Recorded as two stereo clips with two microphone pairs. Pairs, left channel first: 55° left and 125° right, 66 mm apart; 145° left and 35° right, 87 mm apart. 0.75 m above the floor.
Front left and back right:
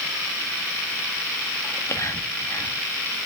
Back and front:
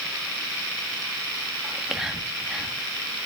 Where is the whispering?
50° left, 1.2 m.